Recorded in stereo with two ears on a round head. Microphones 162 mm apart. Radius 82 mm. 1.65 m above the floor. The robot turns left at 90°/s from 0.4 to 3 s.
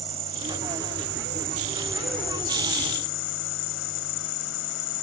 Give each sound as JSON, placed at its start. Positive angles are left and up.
{"t": 0.0, "sound": "an insect", "azimuth_deg": -30}